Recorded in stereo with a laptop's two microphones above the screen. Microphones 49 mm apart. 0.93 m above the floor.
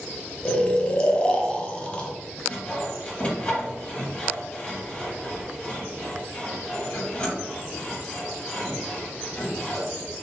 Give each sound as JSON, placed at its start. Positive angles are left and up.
{"t": 0.5, "sound": "snoring", "side_deg": 20, "distance_m": 0.5}
{"t": 2.5, "sound": "sawing", "side_deg": 25, "distance_m": 2.0}